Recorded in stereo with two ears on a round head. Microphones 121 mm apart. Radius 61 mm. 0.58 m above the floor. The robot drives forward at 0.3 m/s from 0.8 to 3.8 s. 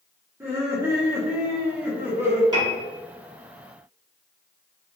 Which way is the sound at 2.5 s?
30° right (ahead or behind).